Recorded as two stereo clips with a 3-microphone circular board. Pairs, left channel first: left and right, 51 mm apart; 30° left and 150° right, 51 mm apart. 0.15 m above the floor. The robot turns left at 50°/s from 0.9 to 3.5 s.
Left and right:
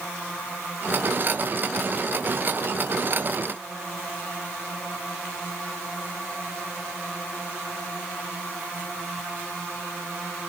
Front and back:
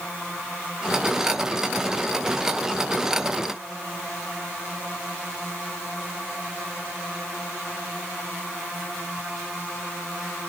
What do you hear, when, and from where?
Only background noise.